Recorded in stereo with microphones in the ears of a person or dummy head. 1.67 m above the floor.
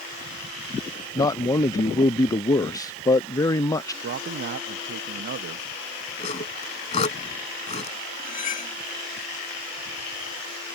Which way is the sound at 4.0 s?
60° right (ahead or behind).